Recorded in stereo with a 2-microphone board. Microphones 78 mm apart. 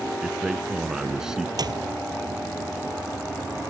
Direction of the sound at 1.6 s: 60° right (ahead or behind).